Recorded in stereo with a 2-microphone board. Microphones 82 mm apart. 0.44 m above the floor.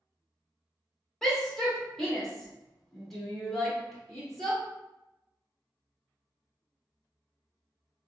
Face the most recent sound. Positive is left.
turn(degrees=5)  # may be behind; listen again after turning